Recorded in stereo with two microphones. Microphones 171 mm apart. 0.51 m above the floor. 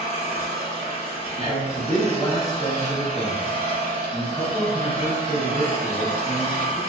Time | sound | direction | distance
0.0 | an engine running | 40° left (ahead or behind) | 0.8 m
1.4 | a man speaking | 15° left (ahead or behind) | 0.8 m